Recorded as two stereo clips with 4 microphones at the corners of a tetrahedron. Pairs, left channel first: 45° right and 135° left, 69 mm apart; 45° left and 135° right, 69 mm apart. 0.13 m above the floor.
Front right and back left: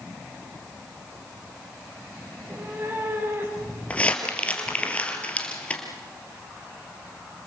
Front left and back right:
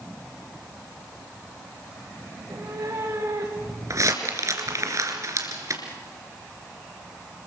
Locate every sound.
2.3 s a cat meowing: 170° right, 7 m; by 4.9 s straight behind, 4.5 m
3.9 s crumpling: 110° right, 3 m